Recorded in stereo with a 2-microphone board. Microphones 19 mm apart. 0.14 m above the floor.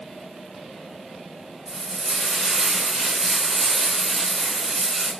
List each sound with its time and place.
1.7 s frying: centre (ahead or behind), 1.5 m